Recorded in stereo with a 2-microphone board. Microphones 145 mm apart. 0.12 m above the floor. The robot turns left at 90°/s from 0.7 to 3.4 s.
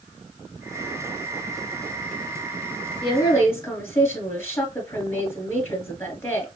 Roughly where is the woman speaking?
Ahead left.